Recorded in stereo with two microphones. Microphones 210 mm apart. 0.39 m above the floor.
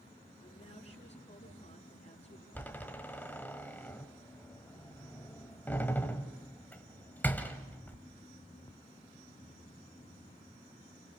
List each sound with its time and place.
0.4 s a woman speaking: 30° left (ahead or behind), 4.5 m
2.5 s a door slam: 10° left (ahead or behind), 1.6 m